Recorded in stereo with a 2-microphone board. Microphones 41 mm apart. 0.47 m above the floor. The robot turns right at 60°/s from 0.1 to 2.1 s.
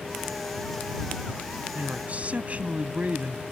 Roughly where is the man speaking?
Right.